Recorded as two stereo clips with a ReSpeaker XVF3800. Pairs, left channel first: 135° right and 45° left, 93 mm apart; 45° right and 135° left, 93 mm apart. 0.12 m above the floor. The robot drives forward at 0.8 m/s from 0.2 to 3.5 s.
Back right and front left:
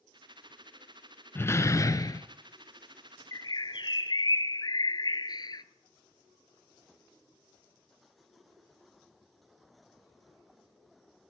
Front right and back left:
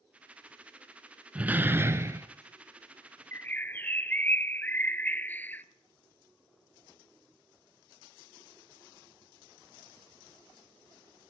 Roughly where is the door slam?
Behind.